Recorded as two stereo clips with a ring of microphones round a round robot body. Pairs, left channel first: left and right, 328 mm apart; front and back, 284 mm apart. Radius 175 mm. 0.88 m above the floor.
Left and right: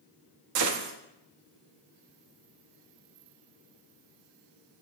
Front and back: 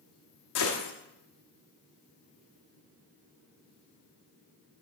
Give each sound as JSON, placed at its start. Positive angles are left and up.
{"t": 0.6, "sound": "a gunshot", "azimuth_deg": -45, "distance_m": 0.8}